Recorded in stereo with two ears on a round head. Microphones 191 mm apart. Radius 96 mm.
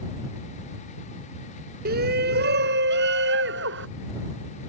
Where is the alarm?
No alarm in this recording.